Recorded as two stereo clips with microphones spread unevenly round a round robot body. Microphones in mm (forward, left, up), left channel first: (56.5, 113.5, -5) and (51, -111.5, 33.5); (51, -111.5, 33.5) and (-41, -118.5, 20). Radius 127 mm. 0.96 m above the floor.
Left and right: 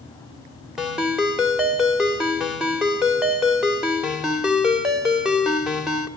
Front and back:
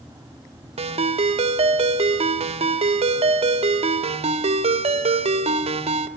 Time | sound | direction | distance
0.8 | a ringtone | 175° right | 1.6 m